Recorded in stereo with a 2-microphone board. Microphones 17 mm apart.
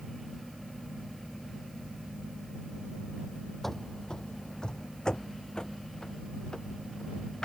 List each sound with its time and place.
3.6 s running footsteps: 20° left (ahead or behind); by 7.5 s 45° left (ahead or behind)